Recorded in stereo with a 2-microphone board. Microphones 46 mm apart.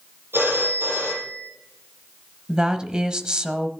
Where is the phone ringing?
60° right (ahead or behind), 4 m.